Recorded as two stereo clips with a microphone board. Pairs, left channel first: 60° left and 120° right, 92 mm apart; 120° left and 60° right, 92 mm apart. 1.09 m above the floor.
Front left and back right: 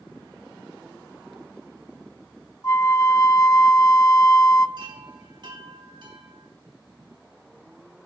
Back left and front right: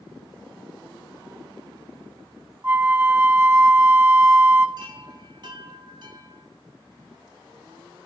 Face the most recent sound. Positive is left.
turn(degrees=-90)